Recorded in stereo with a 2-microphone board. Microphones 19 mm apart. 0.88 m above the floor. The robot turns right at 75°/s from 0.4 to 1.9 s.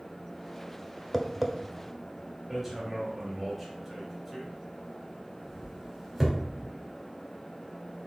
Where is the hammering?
5° right (ahead or behind), 3 m.